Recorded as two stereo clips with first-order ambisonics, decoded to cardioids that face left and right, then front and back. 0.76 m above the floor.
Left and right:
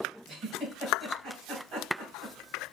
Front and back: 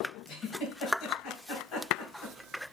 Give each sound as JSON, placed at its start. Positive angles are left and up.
{"t": 0.3, "sound": "a giggle", "azimuth_deg": -40, "distance_m": 2.5}